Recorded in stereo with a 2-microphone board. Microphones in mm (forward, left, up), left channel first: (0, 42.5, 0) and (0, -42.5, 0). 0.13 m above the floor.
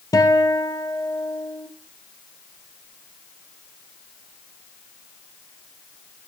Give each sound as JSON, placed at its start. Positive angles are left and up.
{"t": 0.1, "sound": "a guitar", "side_deg": 45, "distance_m": 1.8}